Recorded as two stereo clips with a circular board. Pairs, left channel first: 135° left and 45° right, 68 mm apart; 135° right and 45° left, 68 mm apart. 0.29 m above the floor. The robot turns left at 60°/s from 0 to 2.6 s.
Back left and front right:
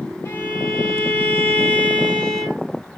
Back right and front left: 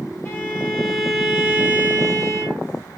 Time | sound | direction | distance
0.2 | a violin | straight behind | 2 m